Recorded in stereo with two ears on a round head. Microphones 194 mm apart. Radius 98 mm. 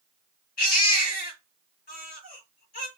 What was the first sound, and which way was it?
A baby crying, 45° left (ahead or behind).